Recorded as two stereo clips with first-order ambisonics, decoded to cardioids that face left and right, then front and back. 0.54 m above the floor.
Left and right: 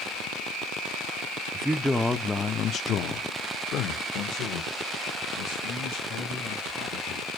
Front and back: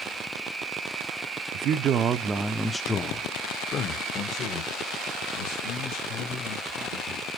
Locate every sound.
1.5 s a man speaking: 165° right, 0.8 m; by 7.3 s 40° left, 3 m